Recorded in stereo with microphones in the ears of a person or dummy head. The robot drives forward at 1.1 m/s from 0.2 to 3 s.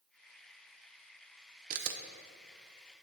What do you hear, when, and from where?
1.7 s a camera shutter: 50° right (ahead or behind), 0.6 m; by 2.0 s 60° right (ahead or behind), 0.5 m